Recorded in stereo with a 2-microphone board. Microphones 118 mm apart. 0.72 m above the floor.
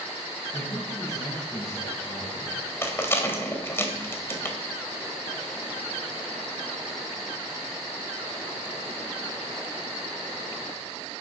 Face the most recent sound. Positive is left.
turn(degrees=20)  # may be behind; listen again after turning